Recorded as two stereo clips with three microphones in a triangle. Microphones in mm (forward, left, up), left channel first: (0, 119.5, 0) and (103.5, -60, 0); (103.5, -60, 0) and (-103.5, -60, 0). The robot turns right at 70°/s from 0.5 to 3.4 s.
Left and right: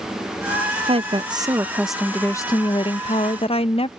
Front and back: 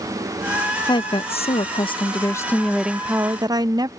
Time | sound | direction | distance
0.9 | a woman speaking | 45° right | ?